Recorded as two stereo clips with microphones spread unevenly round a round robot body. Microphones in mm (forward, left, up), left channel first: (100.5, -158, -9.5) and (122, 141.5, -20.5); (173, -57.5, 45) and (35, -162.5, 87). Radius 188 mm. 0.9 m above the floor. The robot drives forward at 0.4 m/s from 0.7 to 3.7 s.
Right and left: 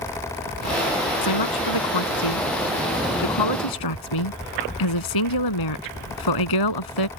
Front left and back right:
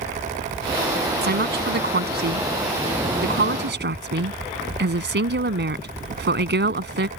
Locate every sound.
1.2 s a woman speaking: 120° right; by 7.1 s 125° right